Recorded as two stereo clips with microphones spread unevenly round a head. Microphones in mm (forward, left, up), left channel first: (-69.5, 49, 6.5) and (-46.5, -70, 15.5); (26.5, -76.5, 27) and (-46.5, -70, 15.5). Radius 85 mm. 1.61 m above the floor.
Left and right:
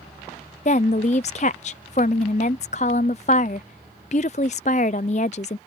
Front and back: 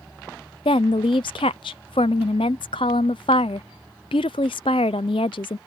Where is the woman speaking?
45° left.